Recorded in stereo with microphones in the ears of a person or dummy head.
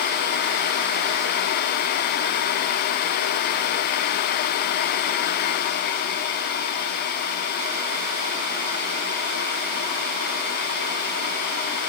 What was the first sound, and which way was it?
Only background noise.